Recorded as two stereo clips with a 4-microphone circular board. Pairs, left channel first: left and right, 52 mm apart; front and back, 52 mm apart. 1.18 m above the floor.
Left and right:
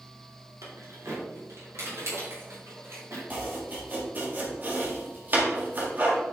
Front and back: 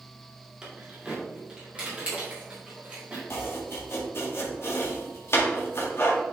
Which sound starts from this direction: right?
Keys jangling, at 0.6 s.